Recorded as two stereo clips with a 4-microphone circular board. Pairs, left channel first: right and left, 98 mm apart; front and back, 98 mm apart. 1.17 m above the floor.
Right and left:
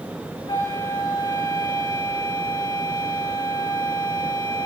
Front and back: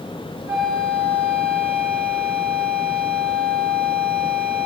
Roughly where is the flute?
Behind right.